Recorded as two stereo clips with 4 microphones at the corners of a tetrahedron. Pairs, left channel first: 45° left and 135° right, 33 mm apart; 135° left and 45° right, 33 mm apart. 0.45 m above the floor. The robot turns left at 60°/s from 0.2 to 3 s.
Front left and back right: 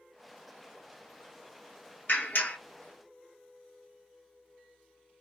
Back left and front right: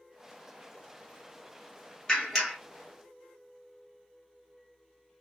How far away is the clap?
About 1.9 m.